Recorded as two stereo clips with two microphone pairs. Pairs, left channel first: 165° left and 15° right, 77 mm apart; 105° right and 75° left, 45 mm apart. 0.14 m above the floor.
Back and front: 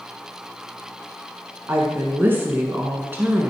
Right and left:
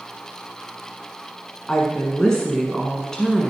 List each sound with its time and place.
1.7 s a woman speaking: 45° right, 1.3 m